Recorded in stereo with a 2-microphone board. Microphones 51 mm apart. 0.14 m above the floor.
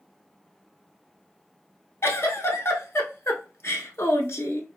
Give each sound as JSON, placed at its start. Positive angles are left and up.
{"t": 2.0, "sound": "a giggle", "side_deg": 55, "distance_m": 0.7}